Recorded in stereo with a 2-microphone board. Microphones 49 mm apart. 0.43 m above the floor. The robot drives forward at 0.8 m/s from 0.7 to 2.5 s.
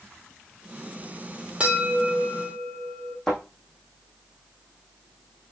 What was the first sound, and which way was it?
A bell, 20° right (ahead or behind).